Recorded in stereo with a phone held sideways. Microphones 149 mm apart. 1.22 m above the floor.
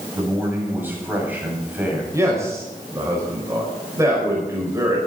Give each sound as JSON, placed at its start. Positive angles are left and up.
{"t": 0.1, "sound": "a man speaking", "side_deg": -15, "distance_m": 6.5}
{"t": 2.1, "sound": "a man speaking", "side_deg": -20, "distance_m": 5.5}